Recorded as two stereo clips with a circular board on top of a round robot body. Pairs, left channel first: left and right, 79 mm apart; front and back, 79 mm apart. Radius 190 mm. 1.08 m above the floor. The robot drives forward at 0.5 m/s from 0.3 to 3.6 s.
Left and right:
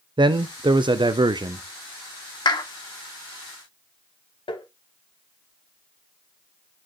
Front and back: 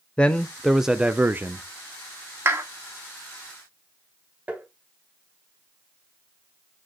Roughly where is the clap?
Behind left.